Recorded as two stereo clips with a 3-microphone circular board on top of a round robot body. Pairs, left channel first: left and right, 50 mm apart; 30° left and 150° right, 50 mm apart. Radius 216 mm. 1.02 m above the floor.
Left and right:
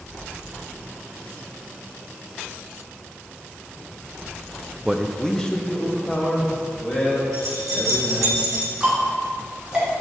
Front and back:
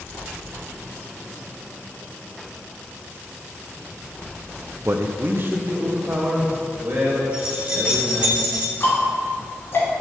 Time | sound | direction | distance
4.8 | a man speaking | 165° right | 0.7 m
7.3 | keys jangling | 80° right | 3 m
8.8 | ticking | 10° right | 2.5 m